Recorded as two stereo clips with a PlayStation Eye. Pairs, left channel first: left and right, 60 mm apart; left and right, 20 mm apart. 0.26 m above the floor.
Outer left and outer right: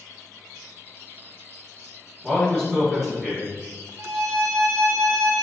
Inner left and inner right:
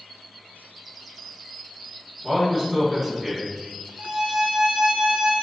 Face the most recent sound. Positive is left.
turn(degrees=-75)  # may be behind; listen again after turning